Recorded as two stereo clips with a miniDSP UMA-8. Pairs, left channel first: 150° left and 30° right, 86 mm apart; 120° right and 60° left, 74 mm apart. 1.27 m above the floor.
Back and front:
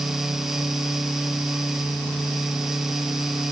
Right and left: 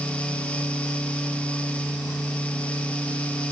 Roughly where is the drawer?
No drawer in this recording.